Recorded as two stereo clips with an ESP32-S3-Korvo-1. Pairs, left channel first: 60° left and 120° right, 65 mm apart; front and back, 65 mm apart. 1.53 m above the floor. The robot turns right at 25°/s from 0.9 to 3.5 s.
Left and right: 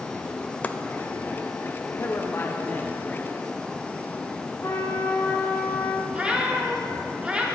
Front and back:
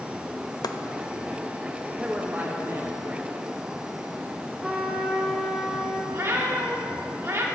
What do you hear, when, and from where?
0.6 s chopping: 5° right, 0.5 m
2.0 s a man speaking: 105° left, 0.8 m; by 3.3 s 140° left, 0.8 m
4.6 s a trumpet: 105° left, 0.9 m
6.1 s a cat meowing: 175° left, 1.3 m